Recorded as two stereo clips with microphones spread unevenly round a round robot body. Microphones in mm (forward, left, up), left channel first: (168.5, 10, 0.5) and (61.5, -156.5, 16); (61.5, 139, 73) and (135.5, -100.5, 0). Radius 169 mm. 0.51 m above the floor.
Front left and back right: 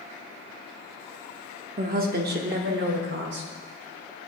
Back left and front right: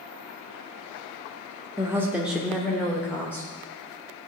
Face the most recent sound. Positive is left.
turn(degrees=-165)